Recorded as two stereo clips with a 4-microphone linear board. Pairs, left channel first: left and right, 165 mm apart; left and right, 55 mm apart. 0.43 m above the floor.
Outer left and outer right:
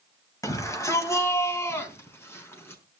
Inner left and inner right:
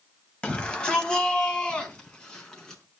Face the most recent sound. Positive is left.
turn(degrees=15)  # may be behind; listen again after turning